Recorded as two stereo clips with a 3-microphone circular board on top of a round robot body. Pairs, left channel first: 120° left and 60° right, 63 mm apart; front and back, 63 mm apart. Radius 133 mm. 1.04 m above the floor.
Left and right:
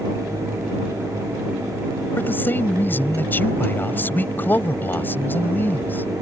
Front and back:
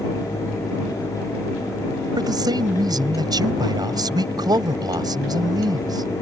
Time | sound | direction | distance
2.2 | a man speaking | straight behind | ?